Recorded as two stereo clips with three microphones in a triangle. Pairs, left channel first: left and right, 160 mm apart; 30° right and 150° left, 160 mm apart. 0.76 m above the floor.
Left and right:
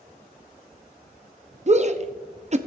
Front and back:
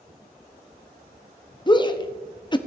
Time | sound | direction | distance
1.7 | a shout | 80° right | 0.8 m